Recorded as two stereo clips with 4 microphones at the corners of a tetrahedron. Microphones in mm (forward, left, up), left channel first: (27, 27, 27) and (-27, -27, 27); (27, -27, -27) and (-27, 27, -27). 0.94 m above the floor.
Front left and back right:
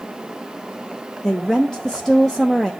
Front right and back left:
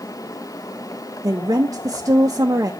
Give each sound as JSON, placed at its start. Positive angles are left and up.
{"t": 1.2, "sound": "a woman speaking", "azimuth_deg": 130, "distance_m": 0.6}